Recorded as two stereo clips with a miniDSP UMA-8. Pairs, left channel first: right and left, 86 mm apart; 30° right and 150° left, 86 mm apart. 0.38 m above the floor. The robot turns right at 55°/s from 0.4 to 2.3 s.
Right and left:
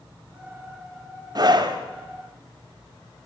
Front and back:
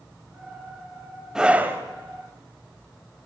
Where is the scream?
65° left, 2 m; by 1.8 s 95° left, 2 m.